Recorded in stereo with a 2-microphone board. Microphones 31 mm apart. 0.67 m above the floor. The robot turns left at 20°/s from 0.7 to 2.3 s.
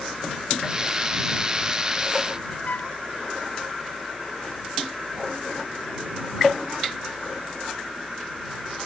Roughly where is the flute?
Left.